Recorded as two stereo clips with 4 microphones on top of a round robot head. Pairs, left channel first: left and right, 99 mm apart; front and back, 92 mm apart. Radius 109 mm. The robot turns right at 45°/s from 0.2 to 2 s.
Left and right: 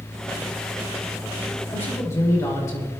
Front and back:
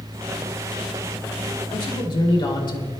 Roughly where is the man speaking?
Ahead.